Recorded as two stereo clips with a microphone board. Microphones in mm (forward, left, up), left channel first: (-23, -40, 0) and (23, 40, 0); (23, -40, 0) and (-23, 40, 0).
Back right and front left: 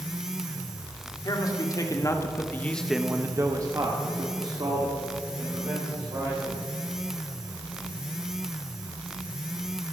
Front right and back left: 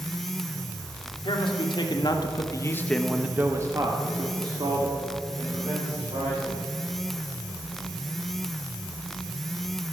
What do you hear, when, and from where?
1.2 s a man speaking: 80° right, 2.5 m; by 6.6 s 95° left, 4.5 m